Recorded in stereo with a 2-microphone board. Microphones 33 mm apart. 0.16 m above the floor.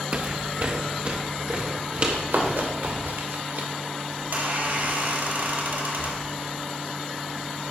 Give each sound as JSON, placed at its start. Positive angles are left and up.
{"t": 0.1, "sound": "footsteps", "side_deg": -40, "distance_m": 0.6}
{"t": 2.1, "sound": "running footsteps", "side_deg": -80, "distance_m": 3.5}
{"t": 4.2, "sound": "a squeak", "side_deg": -65, "distance_m": 2.0}